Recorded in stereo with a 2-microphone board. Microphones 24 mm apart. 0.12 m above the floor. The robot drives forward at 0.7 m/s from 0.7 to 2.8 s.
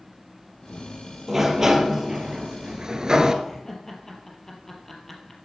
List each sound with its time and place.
1.3 s a sliding door: 15° right (ahead or behind), 2 m; by 3.3 s 30° right (ahead or behind), 1.2 m
3.4 s laughter: 10° left (ahead or behind), 3 m